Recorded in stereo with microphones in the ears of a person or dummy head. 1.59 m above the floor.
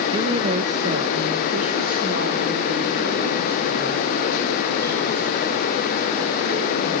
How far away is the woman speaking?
About 1.0 m.